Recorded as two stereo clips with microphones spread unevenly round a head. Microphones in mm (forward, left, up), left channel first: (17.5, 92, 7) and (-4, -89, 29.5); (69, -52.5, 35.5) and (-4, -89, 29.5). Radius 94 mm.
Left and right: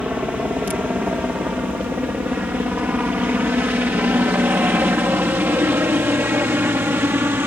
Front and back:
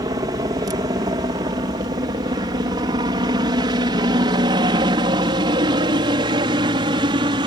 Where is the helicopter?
175° left; by 7.5 s 175° right.